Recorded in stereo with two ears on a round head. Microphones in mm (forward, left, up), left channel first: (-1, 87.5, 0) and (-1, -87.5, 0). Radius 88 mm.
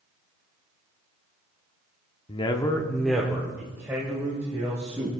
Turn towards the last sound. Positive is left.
turn(degrees=-15)  # may be behind; listen again after turning